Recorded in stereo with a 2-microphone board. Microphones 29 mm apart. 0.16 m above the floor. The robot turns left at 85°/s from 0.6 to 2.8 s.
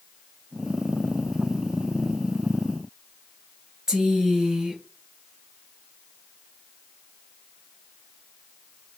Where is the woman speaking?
25° right (ahead or behind), 2.5 m.